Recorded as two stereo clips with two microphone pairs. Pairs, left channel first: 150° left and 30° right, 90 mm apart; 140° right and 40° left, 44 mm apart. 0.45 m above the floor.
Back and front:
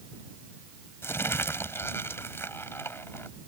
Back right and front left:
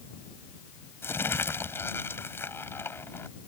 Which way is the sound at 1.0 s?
150° right.